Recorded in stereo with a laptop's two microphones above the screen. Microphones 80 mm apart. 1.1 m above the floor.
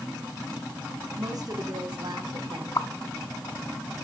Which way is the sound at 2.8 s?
55° left (ahead or behind).